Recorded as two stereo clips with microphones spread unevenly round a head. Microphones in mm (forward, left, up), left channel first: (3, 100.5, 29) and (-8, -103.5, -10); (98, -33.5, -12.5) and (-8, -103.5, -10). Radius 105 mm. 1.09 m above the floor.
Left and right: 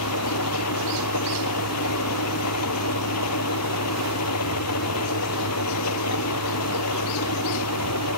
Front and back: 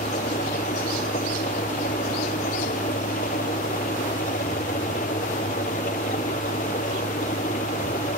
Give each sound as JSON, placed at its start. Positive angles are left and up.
{"t": 0.0, "sound": "an engine running", "azimuth_deg": 85}